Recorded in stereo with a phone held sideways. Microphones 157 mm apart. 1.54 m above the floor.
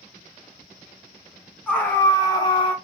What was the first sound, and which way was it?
A scream, 10° left (ahead or behind).